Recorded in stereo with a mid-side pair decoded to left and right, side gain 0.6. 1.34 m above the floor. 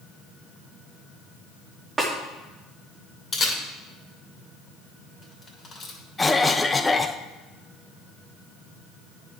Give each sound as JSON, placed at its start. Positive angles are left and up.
{"t": 2.0, "sound": "a snare drum", "azimuth_deg": -25, "distance_m": 2.0}
{"t": 3.3, "sound": "a camera shutter", "azimuth_deg": 30, "distance_m": 2.5}
{"t": 6.2, "sound": "a cough", "azimuth_deg": 15, "distance_m": 0.7}